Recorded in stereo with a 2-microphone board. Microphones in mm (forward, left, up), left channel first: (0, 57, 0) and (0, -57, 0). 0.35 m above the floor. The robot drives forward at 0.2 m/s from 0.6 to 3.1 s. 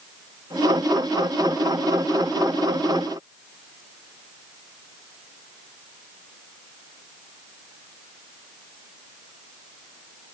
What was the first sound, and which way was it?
Only background noise.